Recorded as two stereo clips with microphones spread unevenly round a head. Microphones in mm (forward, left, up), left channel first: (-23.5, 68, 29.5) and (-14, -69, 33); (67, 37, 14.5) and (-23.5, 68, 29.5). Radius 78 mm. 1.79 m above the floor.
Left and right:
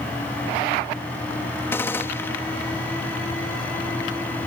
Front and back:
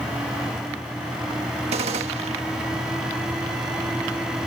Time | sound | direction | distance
1.7 | a gunshot | 170° left | ?